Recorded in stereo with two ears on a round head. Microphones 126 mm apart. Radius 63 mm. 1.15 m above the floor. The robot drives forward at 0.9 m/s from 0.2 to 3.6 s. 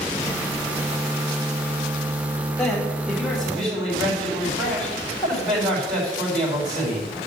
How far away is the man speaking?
About 3.5 m.